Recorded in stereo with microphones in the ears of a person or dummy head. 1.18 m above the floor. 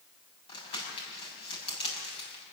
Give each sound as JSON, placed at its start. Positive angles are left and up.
{"t": 0.5, "sound": "crumpling", "side_deg": 35, "distance_m": 7.5}